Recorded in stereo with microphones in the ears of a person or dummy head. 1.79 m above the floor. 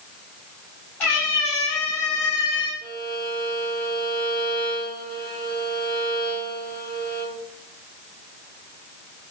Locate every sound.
1.0 s a cat meowing: 10° left (ahead or behind), 1.9 m
2.8 s a violin: 40° right (ahead or behind), 0.5 m